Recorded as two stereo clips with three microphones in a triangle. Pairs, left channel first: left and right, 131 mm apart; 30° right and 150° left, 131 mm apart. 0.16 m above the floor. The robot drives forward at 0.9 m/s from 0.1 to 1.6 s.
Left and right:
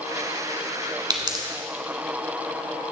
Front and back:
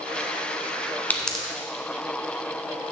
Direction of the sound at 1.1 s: 95° right.